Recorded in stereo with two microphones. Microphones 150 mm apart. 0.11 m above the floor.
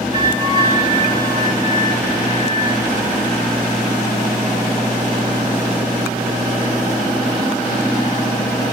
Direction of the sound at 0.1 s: 30° right (ahead or behind).